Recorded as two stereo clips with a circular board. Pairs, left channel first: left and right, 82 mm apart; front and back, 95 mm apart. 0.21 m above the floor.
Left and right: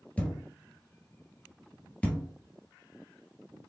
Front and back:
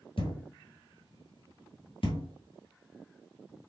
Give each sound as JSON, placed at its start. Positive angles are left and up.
{"t": 0.2, "sound": "a thud", "azimuth_deg": 15, "distance_m": 1.5}